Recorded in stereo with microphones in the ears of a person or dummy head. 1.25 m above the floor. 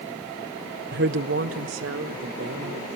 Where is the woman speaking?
45° right (ahead or behind), 0.6 m; by 2.9 s 80° right, 3.5 m.